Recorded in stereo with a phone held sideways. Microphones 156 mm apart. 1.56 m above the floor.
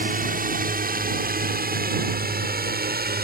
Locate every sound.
0.0 s a drone: 60° right (ahead or behind); by 3.2 s 75° right (ahead or behind)